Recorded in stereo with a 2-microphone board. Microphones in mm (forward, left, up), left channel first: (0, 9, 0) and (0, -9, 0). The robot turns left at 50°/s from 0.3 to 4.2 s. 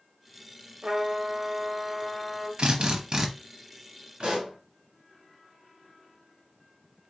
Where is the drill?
110° right, 0.9 m; by 3.3 s 145° right, 0.9 m.